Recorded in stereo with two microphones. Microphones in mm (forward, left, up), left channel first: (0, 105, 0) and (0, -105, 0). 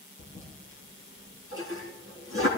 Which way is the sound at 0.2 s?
75° left (ahead or behind).